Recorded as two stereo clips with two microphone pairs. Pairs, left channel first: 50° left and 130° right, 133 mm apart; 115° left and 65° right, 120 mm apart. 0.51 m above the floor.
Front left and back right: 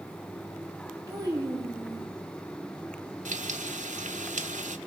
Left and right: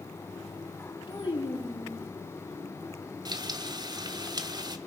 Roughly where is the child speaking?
Behind.